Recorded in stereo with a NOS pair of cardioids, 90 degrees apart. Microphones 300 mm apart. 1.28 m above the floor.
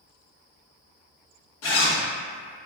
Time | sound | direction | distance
1.6 | a zipper | 60° left | 0.9 m